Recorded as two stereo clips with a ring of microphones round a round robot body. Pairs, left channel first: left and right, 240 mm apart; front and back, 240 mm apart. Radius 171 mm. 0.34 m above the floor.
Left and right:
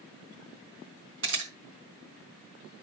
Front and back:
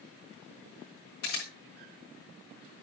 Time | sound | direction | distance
1.2 | a camera shutter | 60° right | 4 m